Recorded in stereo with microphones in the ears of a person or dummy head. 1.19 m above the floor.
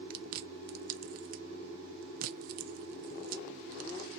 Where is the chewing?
55° right (ahead or behind), 0.6 m.